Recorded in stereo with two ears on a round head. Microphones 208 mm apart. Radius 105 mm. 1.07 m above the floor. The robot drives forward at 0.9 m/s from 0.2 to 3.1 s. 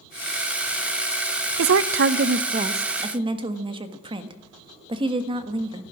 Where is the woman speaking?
70° right (ahead or behind), 0.6 m; by 5.8 s 25° right (ahead or behind), 1.5 m.